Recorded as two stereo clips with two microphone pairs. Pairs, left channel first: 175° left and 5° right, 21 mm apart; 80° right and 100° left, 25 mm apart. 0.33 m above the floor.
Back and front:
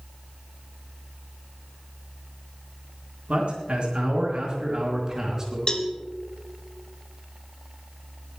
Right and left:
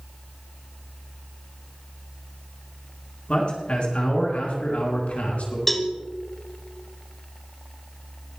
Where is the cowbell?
155° right, 1.2 m.